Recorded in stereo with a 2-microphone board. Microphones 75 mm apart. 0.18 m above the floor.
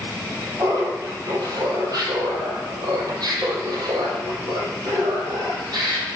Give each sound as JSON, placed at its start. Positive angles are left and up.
{"t": 0.6, "sound": "laughter", "side_deg": -50, "distance_m": 5.0}